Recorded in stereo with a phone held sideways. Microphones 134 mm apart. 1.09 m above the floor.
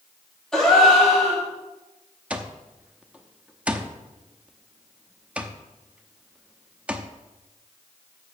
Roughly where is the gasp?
Centre.